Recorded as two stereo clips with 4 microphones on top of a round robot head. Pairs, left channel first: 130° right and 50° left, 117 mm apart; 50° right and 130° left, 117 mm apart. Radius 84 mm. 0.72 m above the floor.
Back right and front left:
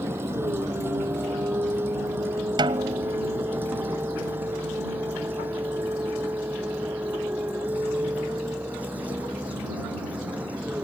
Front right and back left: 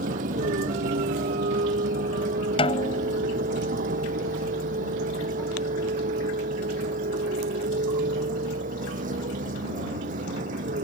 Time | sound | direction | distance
0.0 | a vehicle | 120° left | ?
2.6 | a snare drum | 5° right | ?